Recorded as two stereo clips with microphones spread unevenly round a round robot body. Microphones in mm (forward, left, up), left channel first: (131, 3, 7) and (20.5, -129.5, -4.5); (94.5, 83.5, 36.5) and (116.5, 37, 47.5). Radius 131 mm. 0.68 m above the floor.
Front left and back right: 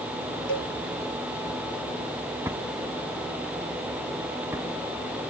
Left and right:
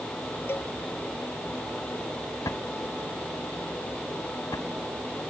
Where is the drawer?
150° left.